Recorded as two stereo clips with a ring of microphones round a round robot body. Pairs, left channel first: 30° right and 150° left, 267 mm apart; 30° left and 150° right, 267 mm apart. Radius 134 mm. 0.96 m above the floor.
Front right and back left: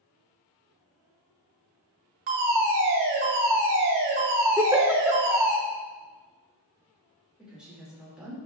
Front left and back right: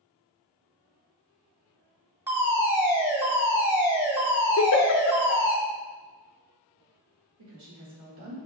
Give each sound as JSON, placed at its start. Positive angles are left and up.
{"t": 2.3, "sound": "a fire alarm", "azimuth_deg": 130, "distance_m": 1.8}
{"t": 4.6, "sound": "a giggle", "azimuth_deg": 70, "distance_m": 0.7}
{"t": 7.4, "sound": "a woman speaking", "azimuth_deg": -125, "distance_m": 2.5}